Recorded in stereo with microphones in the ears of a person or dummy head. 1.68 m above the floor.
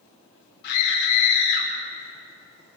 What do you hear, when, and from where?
0.6 s a scream: 55° left (ahead or behind), 5.5 m; by 1.7 s 65° left (ahead or behind), 5.5 m